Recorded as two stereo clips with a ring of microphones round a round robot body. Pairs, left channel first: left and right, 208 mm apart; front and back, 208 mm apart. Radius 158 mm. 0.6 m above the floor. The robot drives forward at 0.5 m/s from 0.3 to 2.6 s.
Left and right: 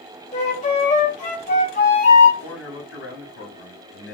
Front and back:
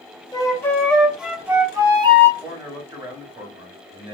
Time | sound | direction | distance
0.3 | a flute | 65° left | 1.4 m
2.4 | a man speaking | 110° left | 2 m